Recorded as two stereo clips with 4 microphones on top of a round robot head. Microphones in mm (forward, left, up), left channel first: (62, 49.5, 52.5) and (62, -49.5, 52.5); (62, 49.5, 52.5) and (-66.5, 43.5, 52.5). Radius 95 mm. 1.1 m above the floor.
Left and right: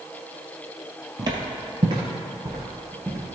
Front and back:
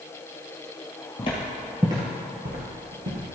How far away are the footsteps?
About 1.6 m.